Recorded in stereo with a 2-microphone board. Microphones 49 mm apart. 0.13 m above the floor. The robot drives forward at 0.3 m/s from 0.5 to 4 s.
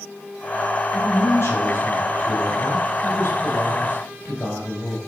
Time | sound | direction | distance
0.9 | a man speaking | 65° left (ahead or behind) | 4.5 m